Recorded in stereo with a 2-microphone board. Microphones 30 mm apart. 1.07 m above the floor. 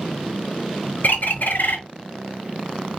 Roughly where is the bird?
Left.